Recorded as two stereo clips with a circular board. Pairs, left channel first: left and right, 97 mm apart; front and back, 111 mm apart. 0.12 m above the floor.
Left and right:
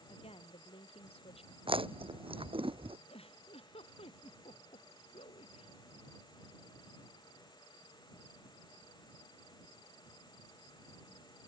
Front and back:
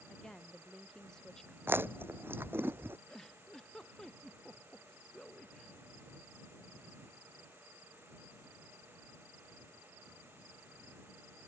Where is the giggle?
85° left.